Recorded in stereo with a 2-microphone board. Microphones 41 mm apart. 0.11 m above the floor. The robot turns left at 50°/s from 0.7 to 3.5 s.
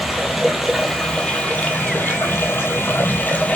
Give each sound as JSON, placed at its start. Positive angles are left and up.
{"t": 0.0, "sound": "running water", "azimuth_deg": -175, "distance_m": 1.2}